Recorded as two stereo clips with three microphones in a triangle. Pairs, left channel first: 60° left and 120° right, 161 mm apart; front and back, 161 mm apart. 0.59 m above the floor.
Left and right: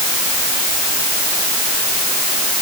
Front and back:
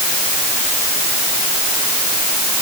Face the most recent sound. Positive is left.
No sound to turn to.